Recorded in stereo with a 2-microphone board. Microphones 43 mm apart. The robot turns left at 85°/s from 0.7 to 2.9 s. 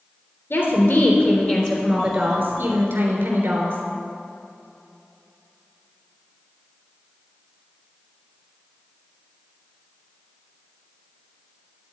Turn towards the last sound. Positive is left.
turn(degrees=-85)